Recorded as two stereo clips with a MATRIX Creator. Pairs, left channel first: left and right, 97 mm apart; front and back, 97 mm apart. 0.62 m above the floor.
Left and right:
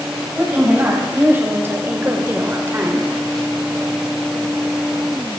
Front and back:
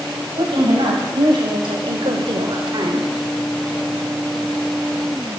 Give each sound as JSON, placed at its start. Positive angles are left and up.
{"t": 0.4, "sound": "a woman speaking", "azimuth_deg": -155, "distance_m": 3.0}